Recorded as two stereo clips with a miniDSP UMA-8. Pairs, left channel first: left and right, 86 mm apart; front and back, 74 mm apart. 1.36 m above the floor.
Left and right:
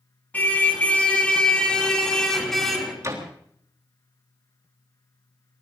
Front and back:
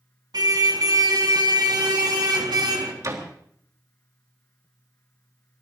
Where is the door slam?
140° right, 3.5 m.